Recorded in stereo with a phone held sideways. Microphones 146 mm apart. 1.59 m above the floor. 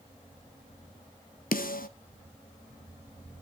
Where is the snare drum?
80° left, 1.0 m.